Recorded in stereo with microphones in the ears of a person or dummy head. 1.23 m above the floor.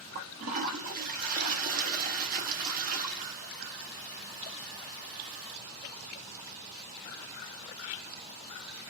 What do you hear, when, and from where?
0.1 s a toilet flushing: 35° right (ahead or behind), 0.6 m